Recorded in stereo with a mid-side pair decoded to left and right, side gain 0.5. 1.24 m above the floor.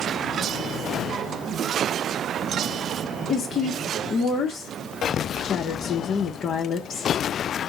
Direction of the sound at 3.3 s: 50° left.